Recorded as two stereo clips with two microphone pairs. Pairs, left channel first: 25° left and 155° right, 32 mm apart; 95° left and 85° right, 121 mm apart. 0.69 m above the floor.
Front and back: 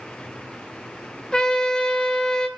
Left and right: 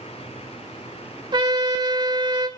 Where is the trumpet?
35° right, 1.7 m.